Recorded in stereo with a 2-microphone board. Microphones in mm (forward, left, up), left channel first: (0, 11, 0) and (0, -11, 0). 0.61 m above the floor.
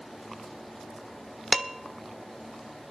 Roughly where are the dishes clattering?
Right.